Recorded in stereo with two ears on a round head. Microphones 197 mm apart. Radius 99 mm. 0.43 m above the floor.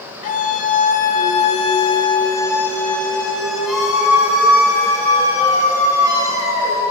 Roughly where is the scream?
Left.